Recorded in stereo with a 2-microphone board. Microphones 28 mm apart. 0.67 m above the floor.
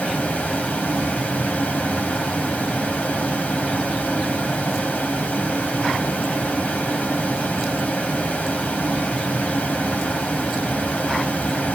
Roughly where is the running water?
Left.